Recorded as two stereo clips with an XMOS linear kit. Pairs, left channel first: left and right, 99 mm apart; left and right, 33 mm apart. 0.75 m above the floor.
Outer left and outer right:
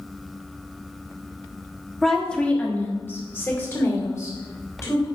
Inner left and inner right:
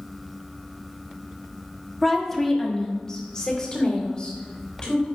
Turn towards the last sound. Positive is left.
turn(degrees=35)  # may be behind; listen again after turning